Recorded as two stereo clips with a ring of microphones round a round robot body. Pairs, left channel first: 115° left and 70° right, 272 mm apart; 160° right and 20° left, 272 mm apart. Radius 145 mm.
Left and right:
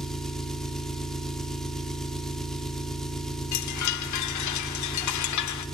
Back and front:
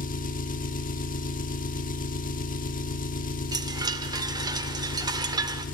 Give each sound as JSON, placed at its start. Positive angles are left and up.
{"t": 0.0, "sound": "an engine running", "azimuth_deg": -160, "distance_m": 0.9}
{"t": 3.5, "sound": "a chime", "azimuth_deg": 100, "distance_m": 0.6}